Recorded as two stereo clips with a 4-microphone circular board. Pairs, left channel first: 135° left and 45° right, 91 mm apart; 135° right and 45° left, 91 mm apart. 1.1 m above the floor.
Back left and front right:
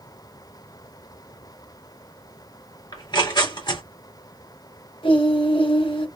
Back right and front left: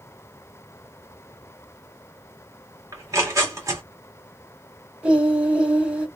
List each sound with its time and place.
2.9 s tearing paper: 100° left, 1.8 m
5.0 s singing: 125° left, 1.6 m